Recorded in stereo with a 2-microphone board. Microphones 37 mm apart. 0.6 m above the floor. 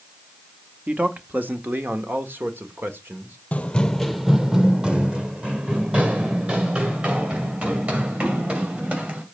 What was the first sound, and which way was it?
A man speaking, 40° right (ahead or behind).